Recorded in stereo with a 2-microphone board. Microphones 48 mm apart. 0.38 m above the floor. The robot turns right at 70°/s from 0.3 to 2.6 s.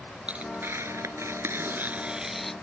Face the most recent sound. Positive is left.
turn(degrees=15)